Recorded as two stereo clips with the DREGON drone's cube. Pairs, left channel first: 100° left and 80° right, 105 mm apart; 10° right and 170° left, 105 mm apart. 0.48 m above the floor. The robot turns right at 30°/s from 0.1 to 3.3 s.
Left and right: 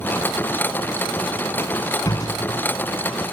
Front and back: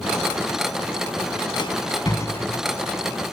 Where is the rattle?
30° left, 2 m; by 2.6 s 60° left, 2 m.